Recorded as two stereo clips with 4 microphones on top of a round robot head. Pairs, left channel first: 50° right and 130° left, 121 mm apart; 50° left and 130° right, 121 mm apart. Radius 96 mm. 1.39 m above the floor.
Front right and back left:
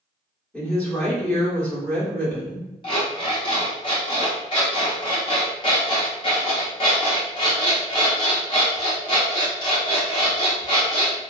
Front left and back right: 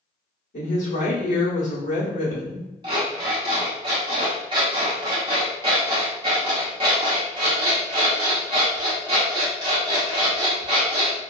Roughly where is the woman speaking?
Ahead left.